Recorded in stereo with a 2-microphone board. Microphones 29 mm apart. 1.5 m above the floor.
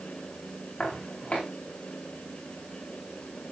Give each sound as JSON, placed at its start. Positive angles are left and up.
{"t": 0.8, "sound": "footsteps", "side_deg": 45, "distance_m": 5.0}